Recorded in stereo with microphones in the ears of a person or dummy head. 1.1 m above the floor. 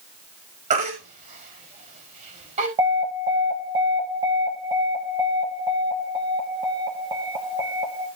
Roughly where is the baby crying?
Right.